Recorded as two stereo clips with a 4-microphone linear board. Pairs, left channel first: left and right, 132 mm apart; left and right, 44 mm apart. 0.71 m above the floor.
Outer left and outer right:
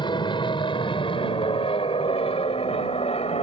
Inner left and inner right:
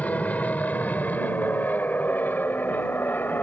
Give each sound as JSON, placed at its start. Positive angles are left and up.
{"t": 0.0, "sound": "an aircraft", "side_deg": 35}